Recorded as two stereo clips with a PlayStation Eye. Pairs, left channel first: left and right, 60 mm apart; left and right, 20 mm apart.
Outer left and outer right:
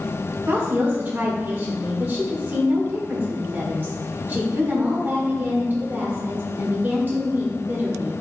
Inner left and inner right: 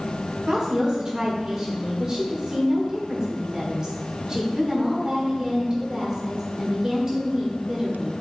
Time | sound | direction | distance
0.5 | a woman speaking | 35° right (ahead or behind) | 1.4 m